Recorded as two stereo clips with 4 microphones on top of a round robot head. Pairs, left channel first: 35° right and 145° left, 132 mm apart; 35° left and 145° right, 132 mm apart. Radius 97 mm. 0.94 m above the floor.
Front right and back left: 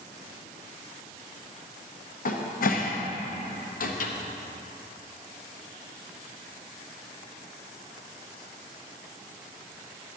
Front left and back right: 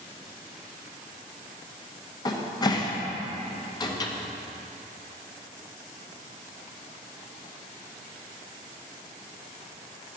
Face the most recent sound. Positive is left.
turn(degrees=-25)